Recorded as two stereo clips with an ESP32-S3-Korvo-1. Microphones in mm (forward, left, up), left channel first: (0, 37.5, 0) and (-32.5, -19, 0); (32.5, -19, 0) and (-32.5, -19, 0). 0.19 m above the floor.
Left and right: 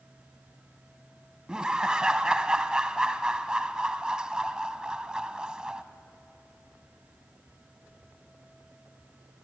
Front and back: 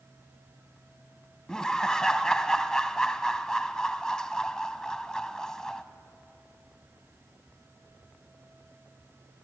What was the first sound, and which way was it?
Laughter, 65° right.